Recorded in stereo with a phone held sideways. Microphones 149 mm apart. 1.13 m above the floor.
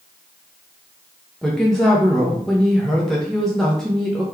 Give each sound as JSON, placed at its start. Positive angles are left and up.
{"t": 1.4, "sound": "a woman speaking", "side_deg": 5, "distance_m": 0.6}